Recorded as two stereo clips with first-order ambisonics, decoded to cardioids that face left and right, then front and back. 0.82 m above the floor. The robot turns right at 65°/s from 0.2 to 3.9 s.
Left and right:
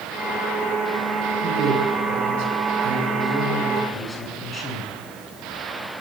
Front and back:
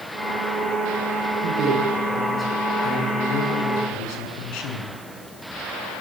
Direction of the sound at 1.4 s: 145° right.